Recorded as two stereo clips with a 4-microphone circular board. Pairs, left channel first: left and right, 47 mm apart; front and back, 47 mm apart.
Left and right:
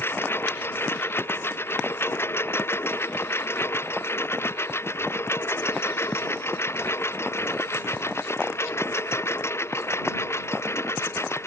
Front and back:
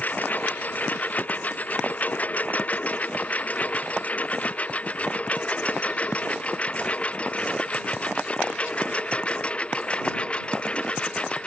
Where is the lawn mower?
55° left; by 11.5 s 70° left.